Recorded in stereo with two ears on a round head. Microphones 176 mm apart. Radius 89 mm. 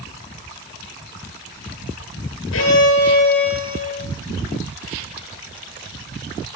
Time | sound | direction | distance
2.5 | a violin | 80° left | 10 m